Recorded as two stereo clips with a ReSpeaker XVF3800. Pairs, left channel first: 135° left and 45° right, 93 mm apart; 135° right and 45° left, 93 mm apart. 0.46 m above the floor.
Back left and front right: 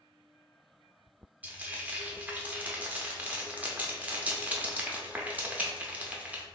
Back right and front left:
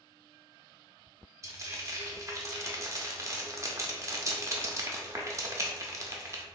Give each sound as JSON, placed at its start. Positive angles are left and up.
{"t": 1.4, "sound": "frying", "azimuth_deg": 20, "distance_m": 0.6}